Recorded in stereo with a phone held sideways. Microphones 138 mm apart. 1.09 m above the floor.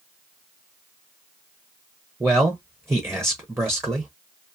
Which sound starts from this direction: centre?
A man speaking, at 2.2 s.